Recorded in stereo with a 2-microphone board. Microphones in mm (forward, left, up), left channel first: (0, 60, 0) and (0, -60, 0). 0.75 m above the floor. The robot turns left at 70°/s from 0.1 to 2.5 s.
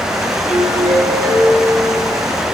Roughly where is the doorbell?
Ahead left.